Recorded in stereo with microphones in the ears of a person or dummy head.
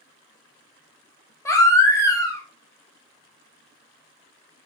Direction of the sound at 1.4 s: 15° left (ahead or behind).